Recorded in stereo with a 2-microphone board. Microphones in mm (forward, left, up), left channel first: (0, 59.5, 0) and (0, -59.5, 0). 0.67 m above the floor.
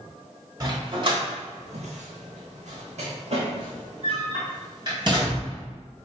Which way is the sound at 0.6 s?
35° right (ahead or behind).